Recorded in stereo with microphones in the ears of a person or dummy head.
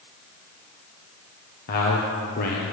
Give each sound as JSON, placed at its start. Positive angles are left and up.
{"t": 1.7, "sound": "a man speaking", "side_deg": 50, "distance_m": 1.0}